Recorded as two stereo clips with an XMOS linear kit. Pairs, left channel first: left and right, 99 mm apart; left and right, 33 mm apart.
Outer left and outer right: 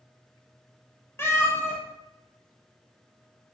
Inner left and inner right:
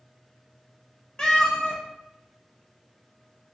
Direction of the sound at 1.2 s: 25° left (ahead or behind).